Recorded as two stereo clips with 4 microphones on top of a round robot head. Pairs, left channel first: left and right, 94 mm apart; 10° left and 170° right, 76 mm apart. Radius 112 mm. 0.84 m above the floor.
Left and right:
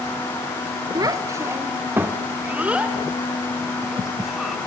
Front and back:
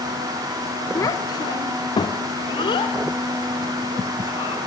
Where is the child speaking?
40° right, 1.5 m; by 4.6 s 5° right, 4 m.